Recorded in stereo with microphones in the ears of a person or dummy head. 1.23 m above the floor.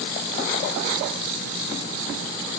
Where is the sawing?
I don't hear sawing.